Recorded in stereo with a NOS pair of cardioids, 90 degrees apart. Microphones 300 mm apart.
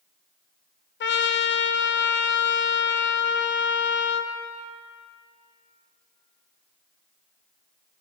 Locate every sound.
1.0 s a trumpet: 40° left, 0.5 m